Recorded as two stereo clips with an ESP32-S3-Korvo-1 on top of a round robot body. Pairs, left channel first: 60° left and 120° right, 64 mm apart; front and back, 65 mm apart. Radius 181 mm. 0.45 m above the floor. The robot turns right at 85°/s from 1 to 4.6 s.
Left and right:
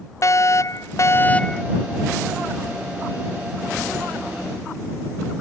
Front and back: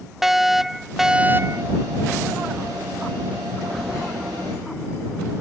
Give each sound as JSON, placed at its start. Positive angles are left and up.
{"t": 0.2, "sound": "a fire alarm", "azimuth_deg": 95}